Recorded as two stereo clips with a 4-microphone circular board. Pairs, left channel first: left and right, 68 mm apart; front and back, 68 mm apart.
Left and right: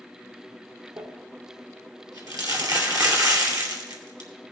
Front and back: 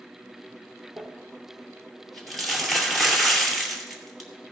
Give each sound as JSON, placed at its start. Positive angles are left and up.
{"t": 1.0, "sound": "crumpling", "azimuth_deg": -90, "distance_m": 2.5}